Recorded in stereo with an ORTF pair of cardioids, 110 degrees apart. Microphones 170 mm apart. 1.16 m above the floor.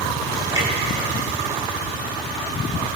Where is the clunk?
15° right, 3.5 m.